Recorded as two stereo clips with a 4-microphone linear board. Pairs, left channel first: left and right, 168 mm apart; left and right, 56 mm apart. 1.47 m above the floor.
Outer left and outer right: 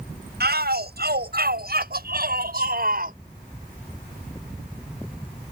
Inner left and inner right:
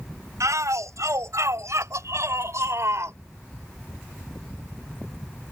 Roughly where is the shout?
Right.